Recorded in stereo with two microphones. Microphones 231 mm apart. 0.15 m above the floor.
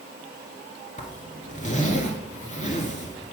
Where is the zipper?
30° left (ahead or behind), 1.4 m.